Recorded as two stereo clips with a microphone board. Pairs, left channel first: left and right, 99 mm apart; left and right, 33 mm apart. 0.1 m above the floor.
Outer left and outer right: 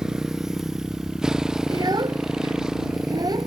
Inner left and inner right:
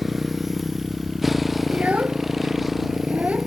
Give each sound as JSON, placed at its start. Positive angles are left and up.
{"t": 0.0, "sound": "a motorcycle", "side_deg": -5}
{"t": 1.7, "sound": "a child speaking", "side_deg": -45}